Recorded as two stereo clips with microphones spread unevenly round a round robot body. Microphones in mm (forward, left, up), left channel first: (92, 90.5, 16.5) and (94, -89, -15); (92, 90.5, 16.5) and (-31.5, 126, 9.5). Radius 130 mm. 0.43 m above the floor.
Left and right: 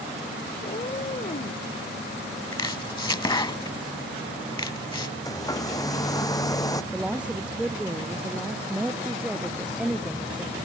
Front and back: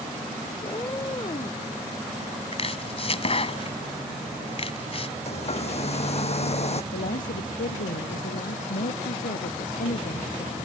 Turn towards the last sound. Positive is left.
turn(degrees=-5)